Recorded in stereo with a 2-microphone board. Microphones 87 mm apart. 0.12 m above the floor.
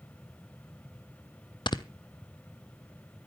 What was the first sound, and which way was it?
Snoring, 65° left (ahead or behind).